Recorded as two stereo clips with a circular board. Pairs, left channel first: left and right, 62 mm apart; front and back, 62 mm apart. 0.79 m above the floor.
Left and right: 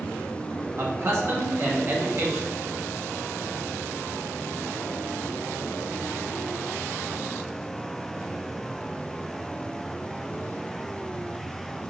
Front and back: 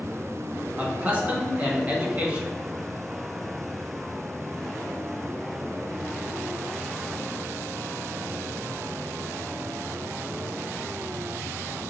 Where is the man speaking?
125° right, 1.2 m.